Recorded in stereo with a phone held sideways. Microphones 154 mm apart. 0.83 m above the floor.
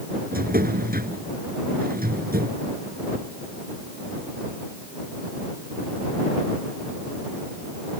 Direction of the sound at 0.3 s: 70° right (ahead or behind).